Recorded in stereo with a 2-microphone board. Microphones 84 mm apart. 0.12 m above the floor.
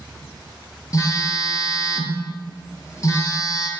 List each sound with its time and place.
0.9 s a phone buzzing: 40° left (ahead or behind), 0.7 m